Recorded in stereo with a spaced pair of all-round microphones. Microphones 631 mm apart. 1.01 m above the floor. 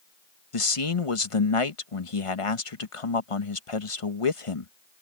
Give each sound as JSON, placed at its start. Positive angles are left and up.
{"t": 0.5, "sound": "a man speaking", "side_deg": 55}